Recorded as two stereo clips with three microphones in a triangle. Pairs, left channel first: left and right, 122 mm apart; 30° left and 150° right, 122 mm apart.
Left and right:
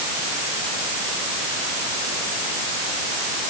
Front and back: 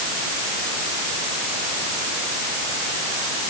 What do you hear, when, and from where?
Only background noise.